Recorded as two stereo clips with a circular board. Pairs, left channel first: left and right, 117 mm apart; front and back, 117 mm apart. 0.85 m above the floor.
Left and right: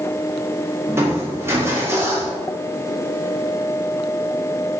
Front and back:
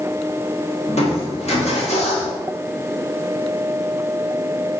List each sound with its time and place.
0.9 s crushing: 20° right, 1.8 m